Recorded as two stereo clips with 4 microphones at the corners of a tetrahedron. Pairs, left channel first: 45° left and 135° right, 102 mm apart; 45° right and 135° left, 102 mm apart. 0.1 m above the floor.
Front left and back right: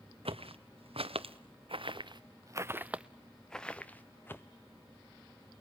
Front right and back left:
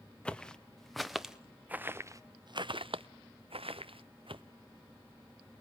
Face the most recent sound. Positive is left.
turn(degrees=110)